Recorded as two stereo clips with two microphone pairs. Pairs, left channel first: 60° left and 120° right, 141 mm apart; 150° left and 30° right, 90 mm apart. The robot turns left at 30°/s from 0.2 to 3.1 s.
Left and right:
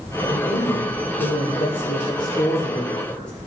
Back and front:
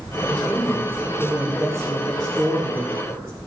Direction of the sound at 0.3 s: 65° left.